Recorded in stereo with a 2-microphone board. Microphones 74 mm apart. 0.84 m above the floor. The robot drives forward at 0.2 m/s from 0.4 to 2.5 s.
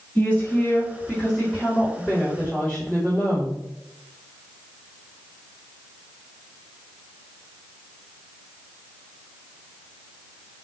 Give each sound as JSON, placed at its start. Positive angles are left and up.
{"t": 0.1, "sound": "a woman speaking", "side_deg": 20, "distance_m": 1.8}